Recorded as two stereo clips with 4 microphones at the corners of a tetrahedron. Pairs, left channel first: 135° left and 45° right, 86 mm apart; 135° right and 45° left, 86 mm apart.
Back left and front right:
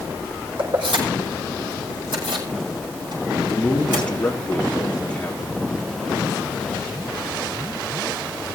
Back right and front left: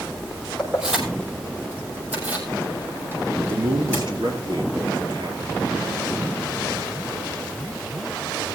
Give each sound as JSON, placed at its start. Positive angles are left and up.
{"t": 0.6, "sound": "keys jangling", "azimuth_deg": -40, "distance_m": 6.5}
{"t": 3.5, "sound": "a man speaking", "azimuth_deg": 60, "distance_m": 4.0}